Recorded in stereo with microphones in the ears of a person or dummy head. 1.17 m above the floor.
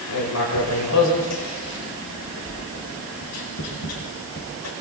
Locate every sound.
0.1 s writing: 75° left (ahead or behind), 6 m